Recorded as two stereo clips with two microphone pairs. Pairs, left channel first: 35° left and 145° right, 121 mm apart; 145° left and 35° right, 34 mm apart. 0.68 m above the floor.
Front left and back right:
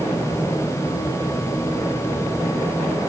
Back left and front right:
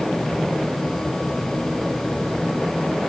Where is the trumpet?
I don't hear a trumpet.